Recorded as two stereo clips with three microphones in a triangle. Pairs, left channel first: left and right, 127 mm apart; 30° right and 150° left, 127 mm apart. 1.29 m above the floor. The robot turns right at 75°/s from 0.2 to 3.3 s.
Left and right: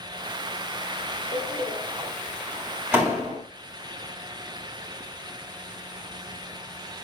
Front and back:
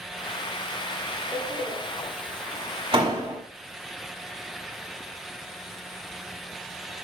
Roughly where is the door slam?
Left.